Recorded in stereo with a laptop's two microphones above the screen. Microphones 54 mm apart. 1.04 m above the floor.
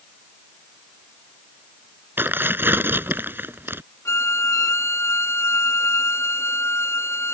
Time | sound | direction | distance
2.2 | tearing paper | 40° right (ahead or behind) | ?
4.0 | a violin | 65° left (ahead or behind) | ?